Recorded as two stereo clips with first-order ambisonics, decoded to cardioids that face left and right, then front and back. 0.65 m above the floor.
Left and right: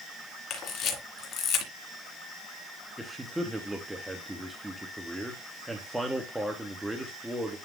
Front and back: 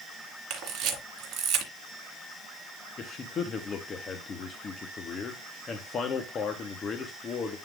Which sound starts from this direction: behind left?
A camera shutter, at 0.5 s.